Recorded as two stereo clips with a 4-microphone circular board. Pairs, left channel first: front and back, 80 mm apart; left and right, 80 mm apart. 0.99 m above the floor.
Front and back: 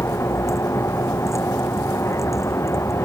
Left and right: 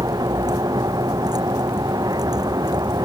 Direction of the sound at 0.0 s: 55° right.